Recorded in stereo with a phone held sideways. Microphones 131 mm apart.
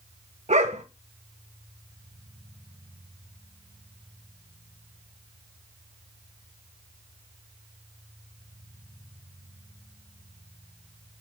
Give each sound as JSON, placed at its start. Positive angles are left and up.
{"t": 0.5, "sound": "a dog barking", "side_deg": -60, "distance_m": 1.4}